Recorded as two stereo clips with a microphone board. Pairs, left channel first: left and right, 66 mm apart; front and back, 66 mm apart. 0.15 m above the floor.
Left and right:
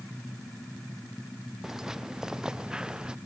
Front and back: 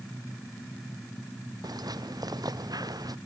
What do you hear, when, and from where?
1.6 s footsteps: 175° right; by 3.1 s 170° right